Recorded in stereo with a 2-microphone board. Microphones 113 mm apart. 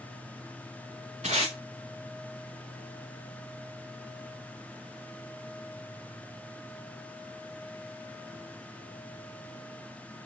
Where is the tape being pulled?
85° right, 3.5 m.